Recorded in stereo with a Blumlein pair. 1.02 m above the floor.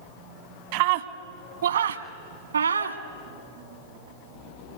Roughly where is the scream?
Ahead right.